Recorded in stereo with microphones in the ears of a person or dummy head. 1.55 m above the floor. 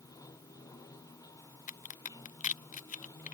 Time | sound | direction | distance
0.0 | running water | 20° left (ahead or behind) | ?
1.7 | a crack | 40° left (ahead or behind) | ?